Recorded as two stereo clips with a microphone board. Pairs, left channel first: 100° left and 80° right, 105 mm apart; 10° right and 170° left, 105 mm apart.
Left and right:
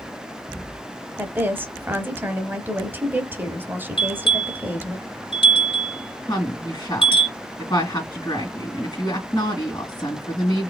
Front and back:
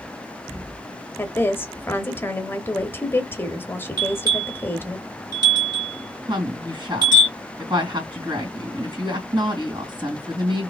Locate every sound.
1.2 s a woman speaking: 45° right, 0.9 m
4.0 s a bell: 125° left, 2.5 m
6.3 s a woman speaking: 140° left, 2.5 m